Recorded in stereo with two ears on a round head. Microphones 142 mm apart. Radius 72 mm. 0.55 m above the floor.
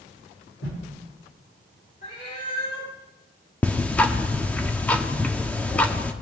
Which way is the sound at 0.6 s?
80° left.